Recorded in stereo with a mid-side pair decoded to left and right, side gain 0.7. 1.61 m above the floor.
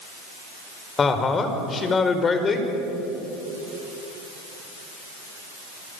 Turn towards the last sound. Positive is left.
turn(degrees=25)